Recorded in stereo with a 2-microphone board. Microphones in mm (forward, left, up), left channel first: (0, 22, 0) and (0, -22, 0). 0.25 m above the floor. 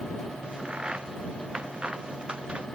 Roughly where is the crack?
Right.